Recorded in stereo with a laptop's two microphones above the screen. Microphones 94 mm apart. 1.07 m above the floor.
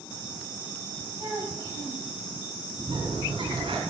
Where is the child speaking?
50° right (ahead or behind), 4.5 m.